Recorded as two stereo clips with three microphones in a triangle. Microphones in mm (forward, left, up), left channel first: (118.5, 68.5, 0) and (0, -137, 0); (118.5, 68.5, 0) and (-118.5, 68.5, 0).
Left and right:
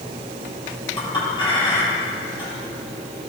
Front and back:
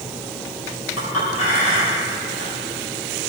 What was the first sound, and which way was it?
A clink, 10° right.